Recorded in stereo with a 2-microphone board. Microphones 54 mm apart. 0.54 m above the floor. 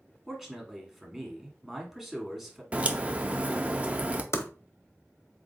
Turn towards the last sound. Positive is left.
turn(degrees=60)  # may be behind; listen again after turning